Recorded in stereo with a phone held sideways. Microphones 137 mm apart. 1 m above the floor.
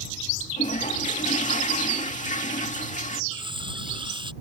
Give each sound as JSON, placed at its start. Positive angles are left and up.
{"t": 0.6, "sound": "a toilet flushing", "side_deg": 65}
{"t": 3.3, "sound": "cutlery clinking", "side_deg": -35}